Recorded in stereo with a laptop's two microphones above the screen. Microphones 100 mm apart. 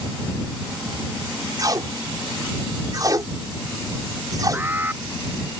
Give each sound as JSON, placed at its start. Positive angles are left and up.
{"t": 1.6, "sound": "tape being pulled", "side_deg": -40}
{"t": 4.5, "sound": "an alarm", "side_deg": -20}